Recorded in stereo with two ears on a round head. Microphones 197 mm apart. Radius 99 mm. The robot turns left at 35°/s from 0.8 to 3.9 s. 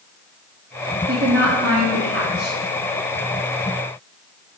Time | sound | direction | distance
1.1 | a woman speaking | 60° right | 1.4 m